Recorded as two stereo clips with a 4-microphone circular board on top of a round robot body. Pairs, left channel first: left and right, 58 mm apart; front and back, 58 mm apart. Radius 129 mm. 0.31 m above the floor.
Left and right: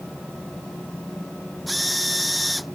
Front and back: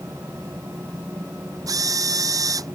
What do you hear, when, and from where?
1.7 s a drill: straight behind